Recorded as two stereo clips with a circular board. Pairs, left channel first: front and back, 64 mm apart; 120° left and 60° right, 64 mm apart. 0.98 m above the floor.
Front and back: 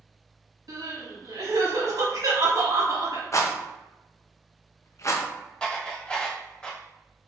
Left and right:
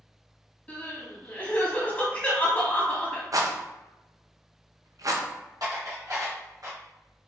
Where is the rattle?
35° right, 0.5 m.